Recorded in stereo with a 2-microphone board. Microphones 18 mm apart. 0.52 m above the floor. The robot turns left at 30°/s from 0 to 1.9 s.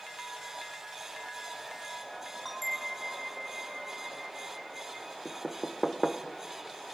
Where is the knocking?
5° left (ahead or behind), 0.9 m.